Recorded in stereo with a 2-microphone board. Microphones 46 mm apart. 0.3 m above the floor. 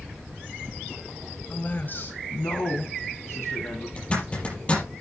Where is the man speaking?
35° left (ahead or behind), 1.4 m; by 3.9 s 70° left (ahead or behind), 3.5 m.